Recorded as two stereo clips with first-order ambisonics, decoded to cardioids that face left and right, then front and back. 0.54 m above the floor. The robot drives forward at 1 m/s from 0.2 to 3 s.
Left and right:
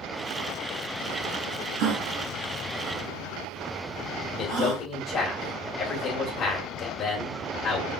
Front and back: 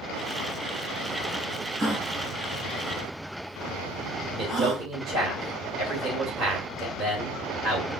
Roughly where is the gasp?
Right.